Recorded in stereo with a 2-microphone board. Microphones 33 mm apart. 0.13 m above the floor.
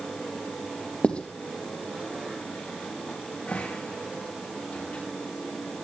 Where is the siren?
I don't hear a siren.